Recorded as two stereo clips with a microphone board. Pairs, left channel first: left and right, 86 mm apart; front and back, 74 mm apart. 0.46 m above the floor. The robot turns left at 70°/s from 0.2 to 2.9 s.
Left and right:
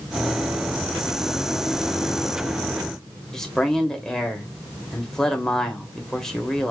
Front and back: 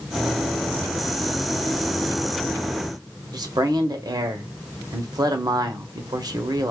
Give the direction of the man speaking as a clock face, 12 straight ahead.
6 o'clock.